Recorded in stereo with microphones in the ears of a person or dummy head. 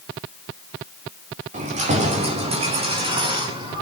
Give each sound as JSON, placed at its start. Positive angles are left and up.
{"t": 1.5, "sound": "keys jangling", "side_deg": -40, "distance_m": 2.5}